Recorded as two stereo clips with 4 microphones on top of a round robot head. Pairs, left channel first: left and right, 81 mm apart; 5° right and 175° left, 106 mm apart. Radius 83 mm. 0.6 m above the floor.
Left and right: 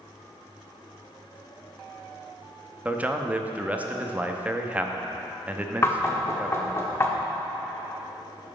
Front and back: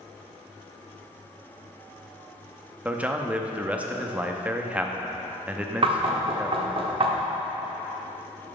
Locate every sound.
2.9 s a man speaking: 130° right, 0.7 m
5.8 s knocking: 145° left, 1.0 m